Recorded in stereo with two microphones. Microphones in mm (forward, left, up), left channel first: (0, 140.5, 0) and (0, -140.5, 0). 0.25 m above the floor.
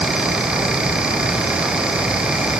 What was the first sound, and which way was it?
Only background noise.